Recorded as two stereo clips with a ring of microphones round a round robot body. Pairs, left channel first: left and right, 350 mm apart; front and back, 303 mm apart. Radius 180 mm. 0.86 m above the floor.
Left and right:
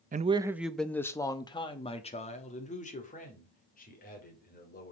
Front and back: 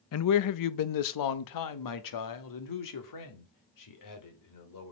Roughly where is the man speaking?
Ahead right.